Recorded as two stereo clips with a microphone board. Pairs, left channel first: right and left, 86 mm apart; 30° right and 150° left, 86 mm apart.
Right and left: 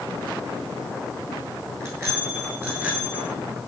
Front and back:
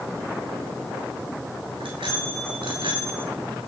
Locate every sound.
1.8 s a bicycle bell: 150° left, 7 m; by 3.3 s 160° left, 7.5 m